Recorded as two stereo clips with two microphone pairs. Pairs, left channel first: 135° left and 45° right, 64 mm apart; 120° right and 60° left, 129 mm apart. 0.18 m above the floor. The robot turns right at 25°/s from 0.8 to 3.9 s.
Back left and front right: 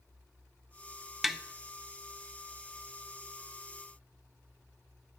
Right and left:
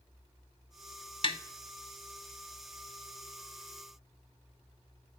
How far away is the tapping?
About 0.6 m.